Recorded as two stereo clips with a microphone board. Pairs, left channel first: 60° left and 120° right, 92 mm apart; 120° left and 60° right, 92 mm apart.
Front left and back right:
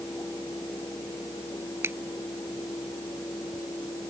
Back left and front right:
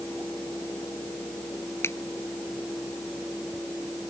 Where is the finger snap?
Straight behind.